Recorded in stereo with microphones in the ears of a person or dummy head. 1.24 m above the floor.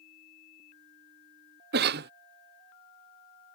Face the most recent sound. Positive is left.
turn(degrees=-45)  # may be behind; listen again after turning